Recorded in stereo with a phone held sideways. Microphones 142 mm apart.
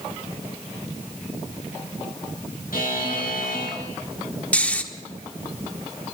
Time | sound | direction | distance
2.7 | a buzzer | 80° left | 3.5 m
4.5 | snoring | 10° left (ahead or behind) | 0.9 m